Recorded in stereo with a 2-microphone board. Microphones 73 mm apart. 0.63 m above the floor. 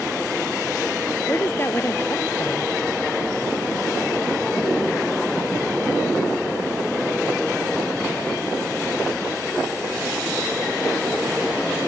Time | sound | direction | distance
1.3 | a woman speaking | 35° left (ahead or behind) | ?